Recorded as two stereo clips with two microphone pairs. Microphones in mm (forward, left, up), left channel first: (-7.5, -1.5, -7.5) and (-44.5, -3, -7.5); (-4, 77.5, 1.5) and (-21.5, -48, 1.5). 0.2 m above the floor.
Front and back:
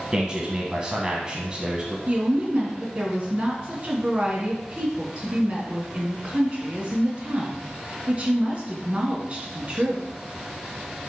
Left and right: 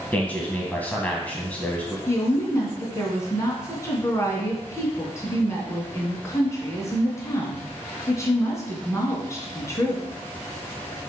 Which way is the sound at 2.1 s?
140° left.